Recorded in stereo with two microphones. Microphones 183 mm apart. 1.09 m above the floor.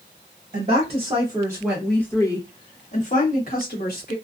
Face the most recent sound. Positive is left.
turn(degrees=60)  # may be behind; listen again after turning